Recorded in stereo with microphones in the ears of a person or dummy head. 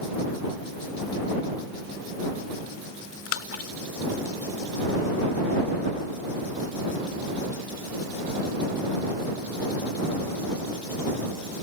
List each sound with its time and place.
3.3 s a splash: 80° left